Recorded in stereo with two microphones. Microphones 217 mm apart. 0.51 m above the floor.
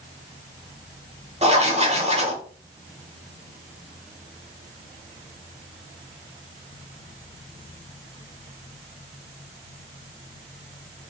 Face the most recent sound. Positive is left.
turn(degrees=-30)  # may be behind; listen again after turning